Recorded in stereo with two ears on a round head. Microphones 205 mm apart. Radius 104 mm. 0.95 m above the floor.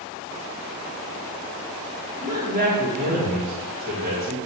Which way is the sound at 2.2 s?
40° right (ahead or behind).